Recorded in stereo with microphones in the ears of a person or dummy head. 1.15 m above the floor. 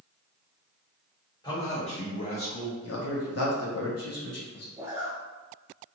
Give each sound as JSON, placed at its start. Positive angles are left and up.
{"t": 1.4, "sound": "a man speaking", "side_deg": 20, "distance_m": 1.0}
{"t": 2.8, "sound": "a man speaking", "side_deg": 75, "distance_m": 0.8}
{"t": 4.8, "sound": "a zipper", "side_deg": -15, "distance_m": 0.5}